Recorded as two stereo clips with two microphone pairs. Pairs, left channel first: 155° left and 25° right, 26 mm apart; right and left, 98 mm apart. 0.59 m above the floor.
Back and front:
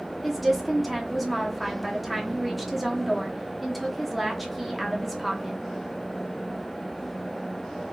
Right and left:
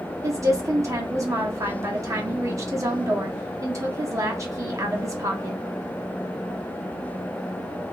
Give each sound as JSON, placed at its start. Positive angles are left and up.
{"t": 0.2, "sound": "a woman speaking", "azimuth_deg": 60, "distance_m": 0.9}